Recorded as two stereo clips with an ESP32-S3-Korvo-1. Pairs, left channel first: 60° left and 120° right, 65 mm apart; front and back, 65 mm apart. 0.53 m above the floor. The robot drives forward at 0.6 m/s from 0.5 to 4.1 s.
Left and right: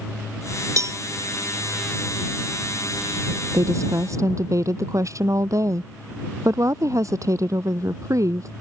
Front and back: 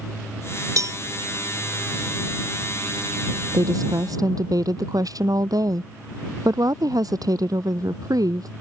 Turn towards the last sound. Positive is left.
turn(degrees=-155)